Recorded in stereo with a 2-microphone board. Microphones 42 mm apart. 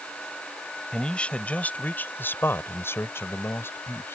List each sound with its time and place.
0.9 s a man speaking: 20° left (ahead or behind); by 4.2 s 65° left (ahead or behind)